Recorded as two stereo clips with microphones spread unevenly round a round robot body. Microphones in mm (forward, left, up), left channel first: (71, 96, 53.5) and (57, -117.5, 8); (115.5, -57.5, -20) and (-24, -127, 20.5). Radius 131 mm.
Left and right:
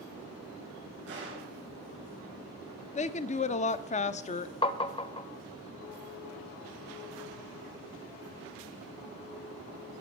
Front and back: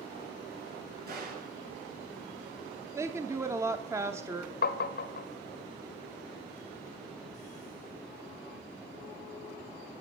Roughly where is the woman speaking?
Behind left.